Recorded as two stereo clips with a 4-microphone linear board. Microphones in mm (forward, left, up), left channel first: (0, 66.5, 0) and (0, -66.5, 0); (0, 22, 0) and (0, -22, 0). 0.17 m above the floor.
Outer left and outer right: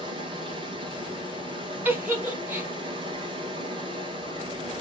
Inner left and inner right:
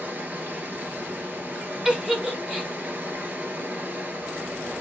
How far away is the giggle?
About 0.9 m.